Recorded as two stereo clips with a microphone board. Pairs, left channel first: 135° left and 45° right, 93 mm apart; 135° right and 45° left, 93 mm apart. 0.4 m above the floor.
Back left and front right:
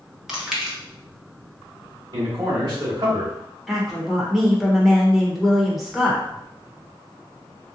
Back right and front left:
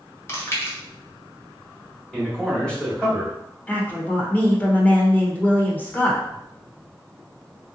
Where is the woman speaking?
130° right, 0.8 m.